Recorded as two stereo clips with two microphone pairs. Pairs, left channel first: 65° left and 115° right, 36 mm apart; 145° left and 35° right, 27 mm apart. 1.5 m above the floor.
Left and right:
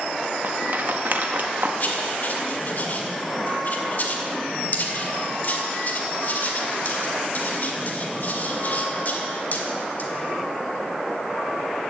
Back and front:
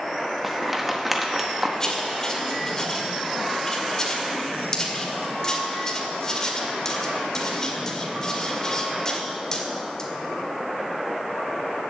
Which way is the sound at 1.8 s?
80° left.